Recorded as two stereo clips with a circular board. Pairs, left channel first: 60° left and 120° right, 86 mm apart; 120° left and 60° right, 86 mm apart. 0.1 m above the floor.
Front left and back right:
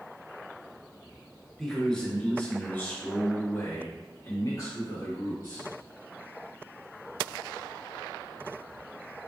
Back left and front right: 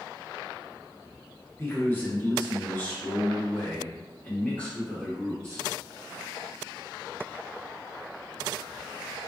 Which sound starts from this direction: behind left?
A man speaking, at 1.6 s.